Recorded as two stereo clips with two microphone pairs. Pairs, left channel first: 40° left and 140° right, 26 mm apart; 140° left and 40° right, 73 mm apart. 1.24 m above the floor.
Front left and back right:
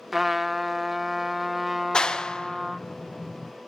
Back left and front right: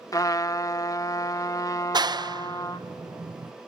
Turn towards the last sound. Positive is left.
turn(degrees=-20)